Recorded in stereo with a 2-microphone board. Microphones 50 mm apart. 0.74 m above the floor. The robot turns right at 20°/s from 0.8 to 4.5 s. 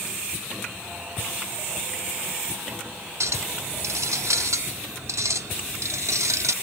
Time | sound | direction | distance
3.2 | a clink | 70° right (ahead or behind) | 0.6 m